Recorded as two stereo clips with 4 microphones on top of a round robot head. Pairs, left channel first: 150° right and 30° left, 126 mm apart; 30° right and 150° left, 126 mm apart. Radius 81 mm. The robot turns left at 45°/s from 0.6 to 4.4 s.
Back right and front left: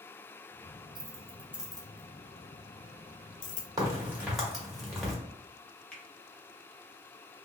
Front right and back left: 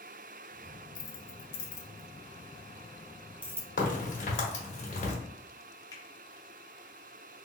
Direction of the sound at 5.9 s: 75° right.